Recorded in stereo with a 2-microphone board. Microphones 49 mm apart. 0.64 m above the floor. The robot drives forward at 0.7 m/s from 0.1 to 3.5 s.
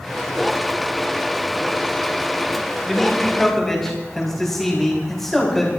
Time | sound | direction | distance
2.9 | a man speaking | 10° left (ahead or behind) | 4.5 m